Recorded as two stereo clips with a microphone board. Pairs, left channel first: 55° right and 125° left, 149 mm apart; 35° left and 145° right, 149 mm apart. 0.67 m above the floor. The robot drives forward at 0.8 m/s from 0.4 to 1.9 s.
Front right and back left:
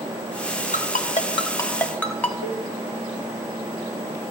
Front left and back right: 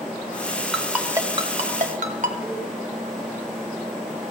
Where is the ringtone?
55° right, 0.9 m; by 2.3 s 135° right, 0.9 m.